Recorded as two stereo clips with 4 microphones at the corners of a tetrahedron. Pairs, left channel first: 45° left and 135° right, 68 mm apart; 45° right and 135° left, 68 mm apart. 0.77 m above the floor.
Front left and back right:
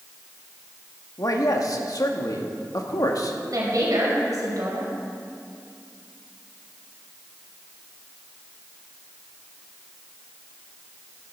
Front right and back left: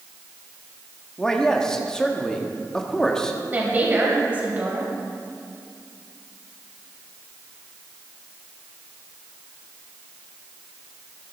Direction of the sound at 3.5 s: 165° right.